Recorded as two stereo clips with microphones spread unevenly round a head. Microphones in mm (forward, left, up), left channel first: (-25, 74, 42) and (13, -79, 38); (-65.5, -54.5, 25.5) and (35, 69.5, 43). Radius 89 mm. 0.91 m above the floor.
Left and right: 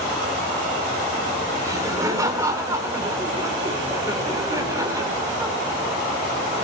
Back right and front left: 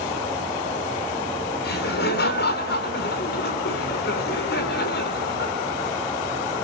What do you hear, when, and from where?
1.6 s laughter: 150° right, 3 m